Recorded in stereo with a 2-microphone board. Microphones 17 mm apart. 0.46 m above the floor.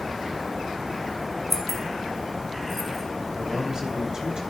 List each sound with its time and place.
1.5 s keys jangling: 15° left (ahead or behind), 2 m
3.3 s a man speaking: 40° right (ahead or behind), 3 m